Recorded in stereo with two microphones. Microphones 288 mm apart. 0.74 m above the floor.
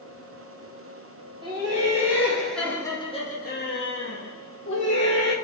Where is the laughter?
15° right (ahead or behind), 1.3 m; by 5.3 s 50° left (ahead or behind), 1.2 m.